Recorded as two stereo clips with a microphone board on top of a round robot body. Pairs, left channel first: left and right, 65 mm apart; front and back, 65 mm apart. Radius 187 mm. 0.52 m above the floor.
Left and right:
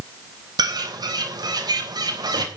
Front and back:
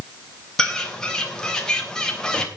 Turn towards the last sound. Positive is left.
turn(degrees=-80)